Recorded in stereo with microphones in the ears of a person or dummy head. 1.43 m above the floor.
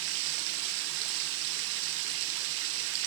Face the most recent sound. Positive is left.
turn(degrees=-65)  # may be behind; listen again after turning